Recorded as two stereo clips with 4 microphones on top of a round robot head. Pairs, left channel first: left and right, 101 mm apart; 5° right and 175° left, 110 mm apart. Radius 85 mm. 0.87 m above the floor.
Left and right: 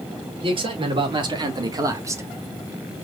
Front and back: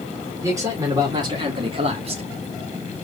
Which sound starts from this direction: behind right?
A man speaking, at 0.4 s.